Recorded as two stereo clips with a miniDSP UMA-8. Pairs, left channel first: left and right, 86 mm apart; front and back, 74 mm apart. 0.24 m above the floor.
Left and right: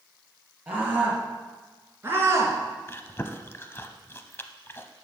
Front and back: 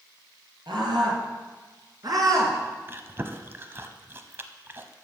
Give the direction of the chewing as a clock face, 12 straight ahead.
7 o'clock.